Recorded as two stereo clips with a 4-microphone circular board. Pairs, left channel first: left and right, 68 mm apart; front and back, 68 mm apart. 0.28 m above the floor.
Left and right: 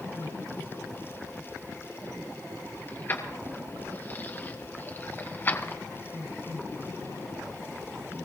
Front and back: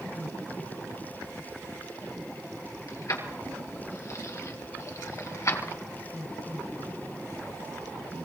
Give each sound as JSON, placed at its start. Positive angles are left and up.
{"t": 2.9, "sound": "keys jangling", "azimuth_deg": 30, "distance_m": 3.5}